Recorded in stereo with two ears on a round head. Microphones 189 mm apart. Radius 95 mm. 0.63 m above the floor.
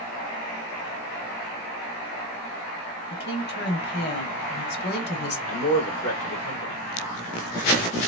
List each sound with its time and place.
3.1 s a woman speaking: 50° left (ahead or behind), 1.3 m
5.5 s a man speaking: 60° left (ahead or behind), 2 m